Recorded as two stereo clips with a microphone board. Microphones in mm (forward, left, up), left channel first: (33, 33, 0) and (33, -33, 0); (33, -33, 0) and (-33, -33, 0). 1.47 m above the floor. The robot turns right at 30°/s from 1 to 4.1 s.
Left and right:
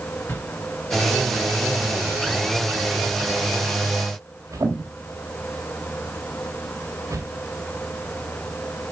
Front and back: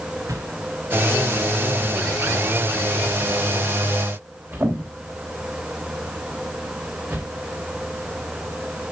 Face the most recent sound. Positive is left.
turn(degrees=-125)